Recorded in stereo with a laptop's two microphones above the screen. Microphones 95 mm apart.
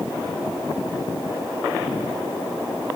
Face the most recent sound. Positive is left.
No sound to turn to.